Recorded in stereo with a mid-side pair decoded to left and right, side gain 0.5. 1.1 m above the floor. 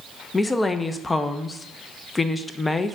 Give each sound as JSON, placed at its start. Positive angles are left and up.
{"t": 0.3, "sound": "a woman speaking", "azimuth_deg": 20, "distance_m": 0.5}